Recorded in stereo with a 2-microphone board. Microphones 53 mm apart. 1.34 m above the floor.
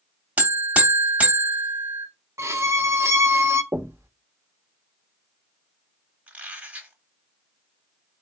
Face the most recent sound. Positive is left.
turn(degrees=-25)  # may be behind; listen again after turning